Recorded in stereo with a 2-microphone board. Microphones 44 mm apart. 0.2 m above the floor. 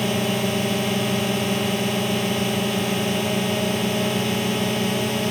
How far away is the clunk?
No clunk in this recording.